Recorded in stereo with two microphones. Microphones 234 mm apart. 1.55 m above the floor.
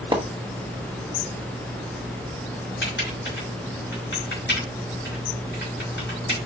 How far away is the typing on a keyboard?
About 4.5 m.